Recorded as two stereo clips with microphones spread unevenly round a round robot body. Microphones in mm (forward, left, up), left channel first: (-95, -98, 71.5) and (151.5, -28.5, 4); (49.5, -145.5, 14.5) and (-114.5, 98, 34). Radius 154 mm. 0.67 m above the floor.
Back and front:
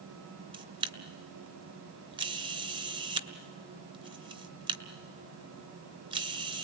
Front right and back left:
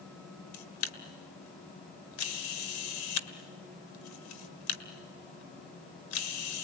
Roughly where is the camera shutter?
Ahead right.